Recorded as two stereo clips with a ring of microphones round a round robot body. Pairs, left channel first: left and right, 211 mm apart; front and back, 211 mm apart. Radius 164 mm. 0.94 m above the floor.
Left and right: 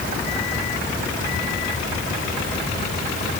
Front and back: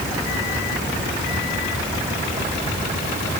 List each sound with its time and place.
Only background noise.